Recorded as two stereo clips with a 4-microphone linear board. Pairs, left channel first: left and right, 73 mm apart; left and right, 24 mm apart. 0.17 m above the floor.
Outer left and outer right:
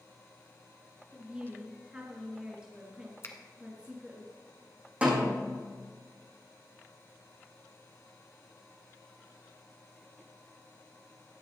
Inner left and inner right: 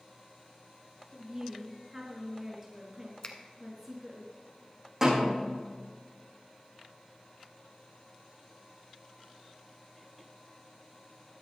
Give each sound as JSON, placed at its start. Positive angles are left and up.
{"t": 1.1, "sound": "a woman speaking", "side_deg": -15, "distance_m": 3.0}
{"t": 3.2, "sound": "a finger snap", "side_deg": 35, "distance_m": 1.2}
{"t": 5.0, "sound": "a snare drum", "side_deg": -20, "distance_m": 5.5}